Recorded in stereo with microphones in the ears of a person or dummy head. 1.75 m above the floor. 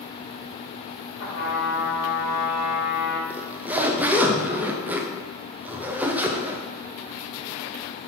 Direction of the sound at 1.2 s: 80° left.